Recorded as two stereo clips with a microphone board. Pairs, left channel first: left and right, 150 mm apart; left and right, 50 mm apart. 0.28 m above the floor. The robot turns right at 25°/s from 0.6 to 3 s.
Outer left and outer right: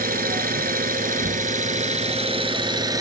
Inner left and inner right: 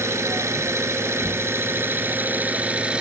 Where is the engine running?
85° right, 1.2 m; by 3.0 s 25° right, 1.2 m.